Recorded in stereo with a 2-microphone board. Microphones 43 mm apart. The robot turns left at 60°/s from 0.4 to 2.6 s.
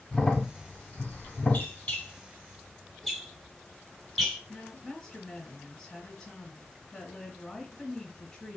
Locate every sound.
0.1 s a crack: 15° left (ahead or behind), 1.1 m; by 1.7 s 30° left (ahead or behind), 1.1 m
1.5 s a squeak: 40° left (ahead or behind), 0.9 m; by 4.4 s centre (ahead or behind), 0.9 m
4.5 s a woman speaking: 15° left (ahead or behind), 1.1 m